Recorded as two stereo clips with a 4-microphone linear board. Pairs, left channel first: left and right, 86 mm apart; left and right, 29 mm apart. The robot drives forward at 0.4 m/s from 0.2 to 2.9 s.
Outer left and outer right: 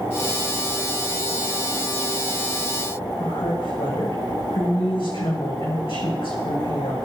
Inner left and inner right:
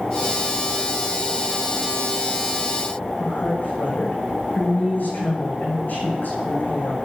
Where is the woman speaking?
80° left, 6.5 m.